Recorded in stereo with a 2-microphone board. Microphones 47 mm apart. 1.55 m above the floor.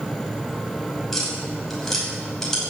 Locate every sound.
1.1 s tapping: 5° left (ahead or behind), 6 m